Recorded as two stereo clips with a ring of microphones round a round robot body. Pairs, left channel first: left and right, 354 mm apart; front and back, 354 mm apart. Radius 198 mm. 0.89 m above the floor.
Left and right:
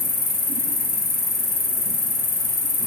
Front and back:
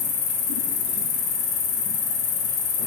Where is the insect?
25° left, 1.1 m.